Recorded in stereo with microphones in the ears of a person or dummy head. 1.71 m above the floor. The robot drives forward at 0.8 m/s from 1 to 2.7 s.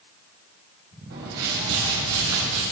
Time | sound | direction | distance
1.1 | a whoosh | 55° right (ahead or behind) | 3.5 m